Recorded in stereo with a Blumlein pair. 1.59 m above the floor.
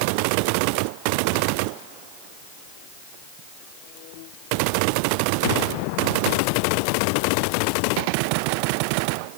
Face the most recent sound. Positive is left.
No sound to turn to.